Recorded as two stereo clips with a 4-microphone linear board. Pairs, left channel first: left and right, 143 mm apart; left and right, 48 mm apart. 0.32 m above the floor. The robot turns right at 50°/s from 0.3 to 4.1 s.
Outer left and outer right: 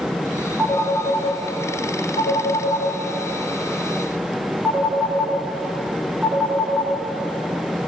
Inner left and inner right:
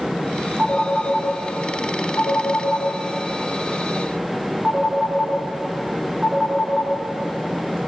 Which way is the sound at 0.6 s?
10° left (ahead or behind).